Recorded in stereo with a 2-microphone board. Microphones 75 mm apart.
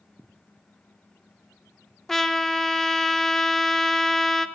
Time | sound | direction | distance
2.1 | a trumpet | 5° left (ahead or behind) | 0.5 m